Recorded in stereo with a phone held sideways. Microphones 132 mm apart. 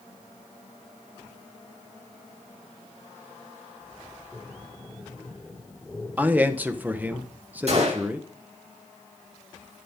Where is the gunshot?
55° right (ahead or behind), 7.5 m.